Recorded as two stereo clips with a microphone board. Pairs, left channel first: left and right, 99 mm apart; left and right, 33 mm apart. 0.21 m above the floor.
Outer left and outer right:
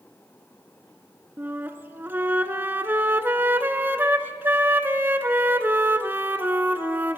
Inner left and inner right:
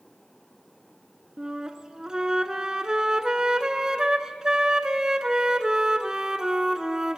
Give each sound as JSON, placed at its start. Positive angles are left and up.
{"t": 1.4, "sound": "a flute", "side_deg": -20, "distance_m": 0.6}